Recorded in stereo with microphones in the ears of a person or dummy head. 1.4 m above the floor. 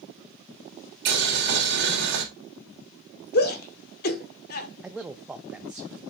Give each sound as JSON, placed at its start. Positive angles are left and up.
{"t": 1.1, "sound": "boiling", "side_deg": -60, "distance_m": 3.0}
{"t": 3.3, "sound": "a shout", "side_deg": 50, "distance_m": 1.4}
{"t": 4.8, "sound": "a man speaking", "side_deg": -5, "distance_m": 0.5}